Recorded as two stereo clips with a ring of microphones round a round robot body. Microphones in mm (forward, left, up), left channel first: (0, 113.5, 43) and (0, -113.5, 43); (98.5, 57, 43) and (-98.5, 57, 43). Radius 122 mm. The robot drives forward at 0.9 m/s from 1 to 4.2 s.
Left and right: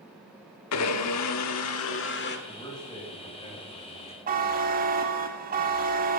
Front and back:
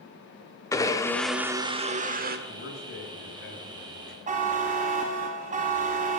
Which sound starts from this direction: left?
A blender, at 0.7 s.